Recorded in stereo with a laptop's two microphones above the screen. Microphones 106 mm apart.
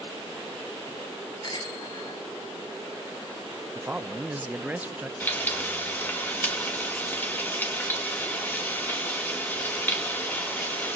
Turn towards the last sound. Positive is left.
turn(degrees=20)  # may be behind; listen again after turning